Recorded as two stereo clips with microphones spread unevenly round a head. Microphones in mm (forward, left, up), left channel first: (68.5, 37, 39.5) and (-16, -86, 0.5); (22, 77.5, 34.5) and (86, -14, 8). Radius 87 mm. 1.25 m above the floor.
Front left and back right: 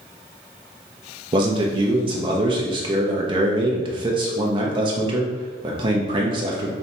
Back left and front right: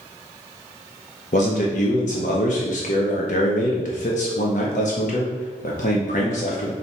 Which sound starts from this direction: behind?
A man speaking, at 1.3 s.